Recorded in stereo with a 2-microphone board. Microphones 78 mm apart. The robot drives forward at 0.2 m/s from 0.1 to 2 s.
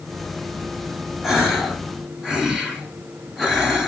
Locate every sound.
1.2 s a gasp: 5° right (ahead or behind), 1.3 m